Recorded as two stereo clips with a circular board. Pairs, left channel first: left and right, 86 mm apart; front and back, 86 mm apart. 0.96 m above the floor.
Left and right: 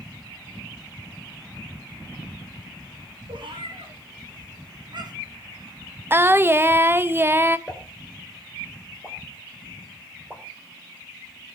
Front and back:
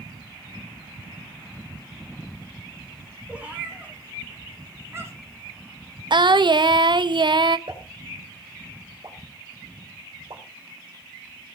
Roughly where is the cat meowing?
Right.